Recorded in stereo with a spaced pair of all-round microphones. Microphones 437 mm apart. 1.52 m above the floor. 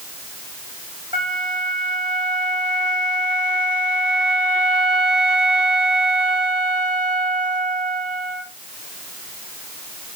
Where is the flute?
15° right (ahead or behind), 2 m.